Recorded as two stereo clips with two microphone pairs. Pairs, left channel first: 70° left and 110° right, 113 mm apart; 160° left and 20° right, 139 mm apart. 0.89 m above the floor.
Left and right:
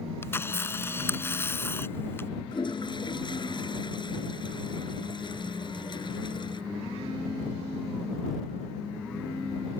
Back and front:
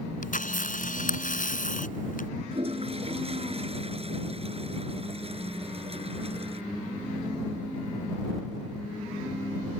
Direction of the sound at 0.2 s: 140° left.